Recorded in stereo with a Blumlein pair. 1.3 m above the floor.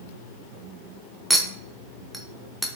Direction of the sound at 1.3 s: Straight ahead.